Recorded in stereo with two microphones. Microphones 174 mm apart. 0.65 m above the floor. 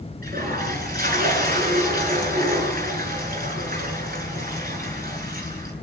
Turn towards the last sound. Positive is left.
turn(degrees=-60)  # may be behind; listen again after turning